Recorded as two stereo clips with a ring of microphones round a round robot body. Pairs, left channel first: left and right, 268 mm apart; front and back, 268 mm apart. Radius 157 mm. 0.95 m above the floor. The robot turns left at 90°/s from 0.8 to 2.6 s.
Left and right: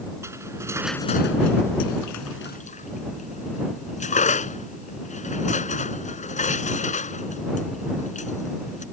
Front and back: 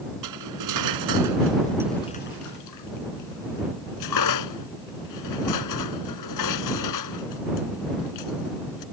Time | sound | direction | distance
0.2 | cutlery clinking | 170° right | ?